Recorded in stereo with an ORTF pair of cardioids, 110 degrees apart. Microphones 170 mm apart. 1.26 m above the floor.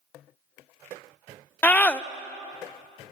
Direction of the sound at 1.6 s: 10° left.